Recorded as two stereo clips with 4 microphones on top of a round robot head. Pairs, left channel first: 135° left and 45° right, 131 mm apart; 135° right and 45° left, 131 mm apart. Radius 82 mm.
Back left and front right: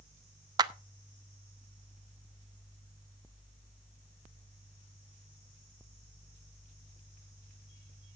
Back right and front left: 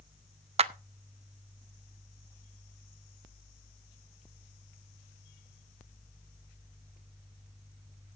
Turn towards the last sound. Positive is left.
turn(degrees=10)